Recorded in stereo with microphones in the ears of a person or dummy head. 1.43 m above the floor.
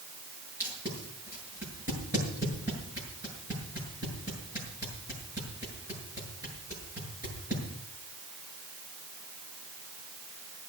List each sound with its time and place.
0.6 s tape being pulled: 25° right (ahead or behind), 7 m